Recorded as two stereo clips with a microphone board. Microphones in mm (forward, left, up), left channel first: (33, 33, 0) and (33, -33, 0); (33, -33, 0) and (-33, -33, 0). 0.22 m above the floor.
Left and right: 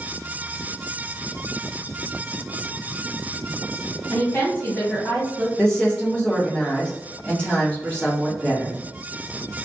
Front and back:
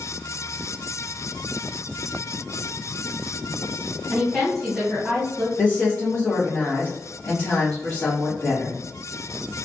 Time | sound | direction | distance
4.1 | a woman speaking | 95° left | 1.3 m
5.6 | a woman speaking | 35° left | 1.2 m